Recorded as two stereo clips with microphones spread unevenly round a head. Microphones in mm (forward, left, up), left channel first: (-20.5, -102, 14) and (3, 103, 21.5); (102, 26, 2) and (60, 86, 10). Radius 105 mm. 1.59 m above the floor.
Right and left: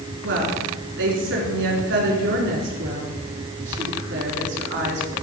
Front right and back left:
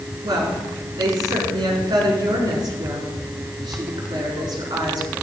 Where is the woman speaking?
115° left, 4 m.